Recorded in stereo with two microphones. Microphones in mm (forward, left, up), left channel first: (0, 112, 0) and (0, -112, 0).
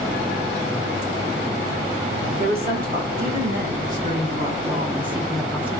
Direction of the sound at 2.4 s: 45° right (ahead or behind).